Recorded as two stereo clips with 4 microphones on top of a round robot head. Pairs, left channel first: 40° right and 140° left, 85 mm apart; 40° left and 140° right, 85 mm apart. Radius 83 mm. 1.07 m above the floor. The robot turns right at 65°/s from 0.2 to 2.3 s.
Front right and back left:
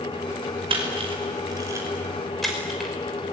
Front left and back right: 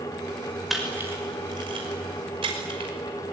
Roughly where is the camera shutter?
Behind left.